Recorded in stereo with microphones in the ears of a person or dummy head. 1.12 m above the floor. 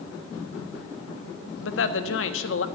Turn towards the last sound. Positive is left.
turn(degrees=80)